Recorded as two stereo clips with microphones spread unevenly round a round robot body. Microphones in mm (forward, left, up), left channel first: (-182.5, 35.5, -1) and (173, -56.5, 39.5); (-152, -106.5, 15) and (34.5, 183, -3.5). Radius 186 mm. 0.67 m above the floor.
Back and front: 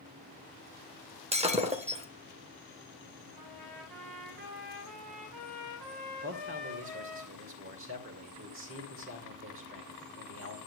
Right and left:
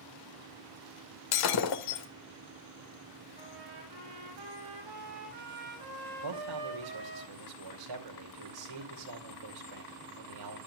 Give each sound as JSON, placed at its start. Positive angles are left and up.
{"t": 1.3, "sound": "breaking glass", "azimuth_deg": -90, "distance_m": 1.6}
{"t": 3.4, "sound": "a trumpet", "azimuth_deg": 25, "distance_m": 9.0}
{"t": 6.2, "sound": "a man speaking", "azimuth_deg": 45, "distance_m": 2.5}